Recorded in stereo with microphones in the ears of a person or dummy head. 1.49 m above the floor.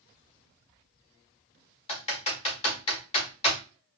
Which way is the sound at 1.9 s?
30° left (ahead or behind).